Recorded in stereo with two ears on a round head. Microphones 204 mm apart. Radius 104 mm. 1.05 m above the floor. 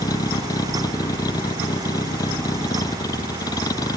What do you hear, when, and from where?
0.0 s a vehicle: 15° left (ahead or behind)